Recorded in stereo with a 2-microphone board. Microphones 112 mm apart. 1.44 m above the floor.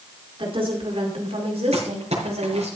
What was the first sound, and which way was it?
A woman speaking, 50° right (ahead or behind).